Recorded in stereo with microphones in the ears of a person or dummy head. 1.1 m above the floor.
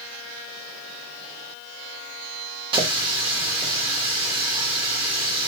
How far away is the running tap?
About 1.0 m.